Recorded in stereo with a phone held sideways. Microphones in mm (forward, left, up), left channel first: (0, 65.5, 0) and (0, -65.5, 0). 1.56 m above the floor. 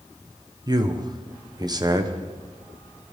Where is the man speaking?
30° right (ahead or behind), 1.1 m.